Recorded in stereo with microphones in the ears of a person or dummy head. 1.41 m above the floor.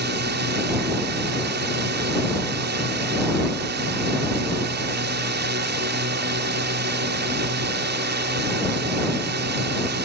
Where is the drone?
50° right (ahead or behind).